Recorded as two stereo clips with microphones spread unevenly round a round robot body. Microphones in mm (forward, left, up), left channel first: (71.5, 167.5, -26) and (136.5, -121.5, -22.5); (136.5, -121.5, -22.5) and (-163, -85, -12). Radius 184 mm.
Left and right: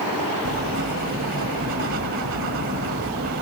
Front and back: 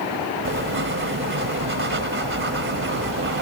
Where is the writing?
135° right.